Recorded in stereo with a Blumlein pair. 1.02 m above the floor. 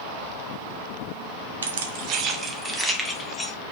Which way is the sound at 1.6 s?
70° right.